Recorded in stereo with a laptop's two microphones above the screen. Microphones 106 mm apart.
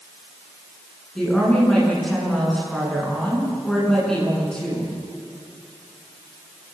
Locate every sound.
1.1 s a woman speaking: 5° left (ahead or behind), 9.5 m